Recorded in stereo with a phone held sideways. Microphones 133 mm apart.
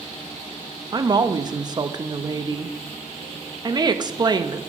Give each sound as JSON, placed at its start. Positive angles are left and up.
{"t": 0.9, "sound": "a woman speaking", "side_deg": -30, "distance_m": 0.5}